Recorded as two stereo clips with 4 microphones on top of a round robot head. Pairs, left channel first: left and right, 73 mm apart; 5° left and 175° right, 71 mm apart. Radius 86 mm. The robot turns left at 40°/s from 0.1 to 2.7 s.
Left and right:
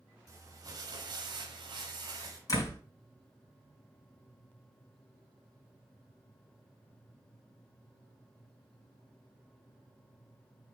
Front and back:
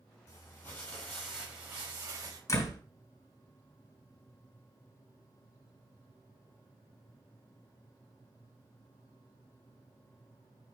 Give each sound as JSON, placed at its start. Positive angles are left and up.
{"t": 0.3, "sound": "crumpling", "azimuth_deg": -50, "distance_m": 2.5}
{"t": 2.5, "sound": "a door slam", "azimuth_deg": 50, "distance_m": 3.5}